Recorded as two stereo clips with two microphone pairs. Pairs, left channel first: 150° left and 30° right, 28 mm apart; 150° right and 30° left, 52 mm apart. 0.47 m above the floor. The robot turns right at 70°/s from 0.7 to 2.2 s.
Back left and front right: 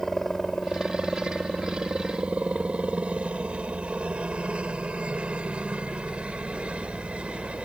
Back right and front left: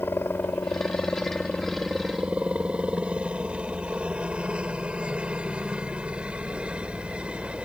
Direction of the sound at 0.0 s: 135° right.